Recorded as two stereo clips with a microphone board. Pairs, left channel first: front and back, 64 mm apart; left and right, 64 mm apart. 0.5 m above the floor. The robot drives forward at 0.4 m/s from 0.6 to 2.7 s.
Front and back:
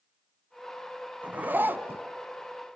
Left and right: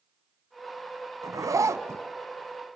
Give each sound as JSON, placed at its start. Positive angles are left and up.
{"t": 1.2, "sound": "a zipper", "azimuth_deg": -115, "distance_m": 0.9}